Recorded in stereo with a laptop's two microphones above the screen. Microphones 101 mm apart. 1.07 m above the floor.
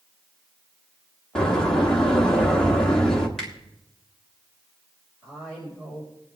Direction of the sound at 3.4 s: 5° left (ahead or behind).